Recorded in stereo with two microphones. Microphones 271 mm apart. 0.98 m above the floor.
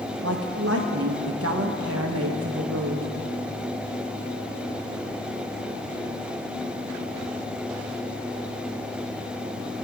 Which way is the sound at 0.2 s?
55° right (ahead or behind).